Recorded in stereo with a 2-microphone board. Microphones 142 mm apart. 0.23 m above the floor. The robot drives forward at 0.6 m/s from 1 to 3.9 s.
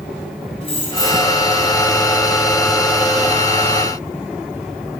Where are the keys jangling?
45° left (ahead or behind), 1.2 m.